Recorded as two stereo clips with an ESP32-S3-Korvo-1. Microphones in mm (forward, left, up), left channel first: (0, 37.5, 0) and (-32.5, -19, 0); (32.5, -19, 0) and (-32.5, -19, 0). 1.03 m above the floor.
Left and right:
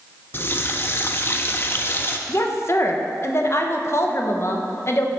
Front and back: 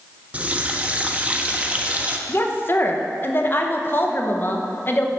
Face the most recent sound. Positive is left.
turn(degrees=35)